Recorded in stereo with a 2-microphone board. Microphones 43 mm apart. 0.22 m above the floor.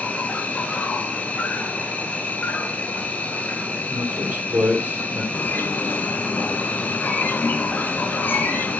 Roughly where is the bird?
Left.